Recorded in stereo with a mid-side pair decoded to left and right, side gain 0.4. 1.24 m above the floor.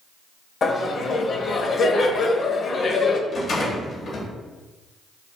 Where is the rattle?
60° left, 1.1 m.